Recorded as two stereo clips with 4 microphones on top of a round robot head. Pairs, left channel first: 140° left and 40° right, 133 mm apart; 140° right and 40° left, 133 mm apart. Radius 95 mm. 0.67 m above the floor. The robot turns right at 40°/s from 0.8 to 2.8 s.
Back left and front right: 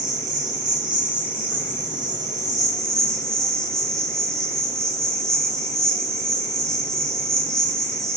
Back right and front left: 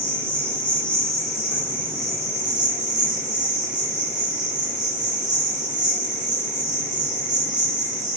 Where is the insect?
65° right, 1.6 m; by 8.2 s 15° left, 1.6 m.